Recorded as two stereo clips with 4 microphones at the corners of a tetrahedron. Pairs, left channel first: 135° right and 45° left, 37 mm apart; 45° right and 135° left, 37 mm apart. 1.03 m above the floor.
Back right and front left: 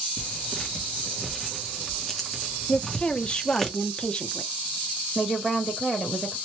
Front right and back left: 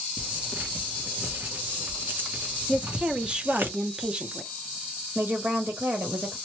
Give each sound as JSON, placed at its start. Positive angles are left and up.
{"t": 0.2, "sound": "tearing paper", "azimuth_deg": 145, "distance_m": 0.9}
{"t": 2.7, "sound": "a woman speaking", "azimuth_deg": 180, "distance_m": 0.7}
{"t": 5.2, "sound": "a woman speaking", "azimuth_deg": 125, "distance_m": 1.1}